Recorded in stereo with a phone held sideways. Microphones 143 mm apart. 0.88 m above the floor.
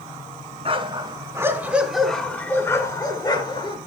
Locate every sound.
0.7 s a dog barking: 40° right (ahead or behind), 2.5 m; by 3.8 s 35° left (ahead or behind), 3.5 m